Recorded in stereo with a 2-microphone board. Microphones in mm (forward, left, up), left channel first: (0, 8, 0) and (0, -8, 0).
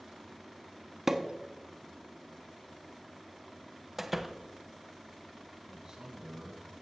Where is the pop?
25° right (ahead or behind), 0.7 m.